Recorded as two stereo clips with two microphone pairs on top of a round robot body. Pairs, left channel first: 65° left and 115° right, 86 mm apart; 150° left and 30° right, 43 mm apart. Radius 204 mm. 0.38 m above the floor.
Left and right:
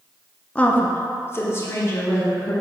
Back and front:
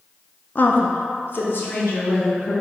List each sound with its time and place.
0.6 s a woman speaking: 135° left, 0.8 m; by 2.5 s 120° left, 2 m